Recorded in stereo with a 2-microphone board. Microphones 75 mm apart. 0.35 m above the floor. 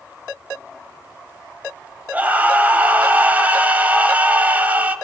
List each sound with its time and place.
2.1 s a scream: 20° right (ahead or behind), 2 m